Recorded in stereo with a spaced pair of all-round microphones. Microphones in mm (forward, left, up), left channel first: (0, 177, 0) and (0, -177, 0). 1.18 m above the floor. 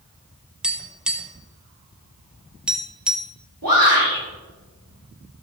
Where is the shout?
75° right (ahead or behind), 3.5 m.